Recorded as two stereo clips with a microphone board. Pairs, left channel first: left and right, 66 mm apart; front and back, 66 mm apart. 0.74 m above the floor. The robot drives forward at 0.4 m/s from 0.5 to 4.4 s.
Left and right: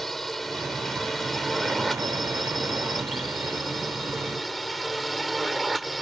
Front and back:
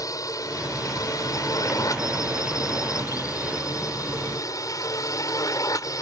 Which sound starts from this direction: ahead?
A drone, at 0.0 s.